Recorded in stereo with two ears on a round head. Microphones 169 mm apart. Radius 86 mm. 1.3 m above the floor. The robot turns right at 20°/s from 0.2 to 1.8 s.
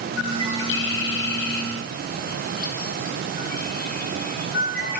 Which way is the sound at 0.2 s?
80° left.